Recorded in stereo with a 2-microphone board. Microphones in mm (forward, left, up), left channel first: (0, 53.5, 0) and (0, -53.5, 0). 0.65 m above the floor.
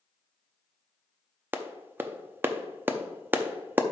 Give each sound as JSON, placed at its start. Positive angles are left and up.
{"t": 1.5, "sound": "a clap", "side_deg": -20, "distance_m": 0.6}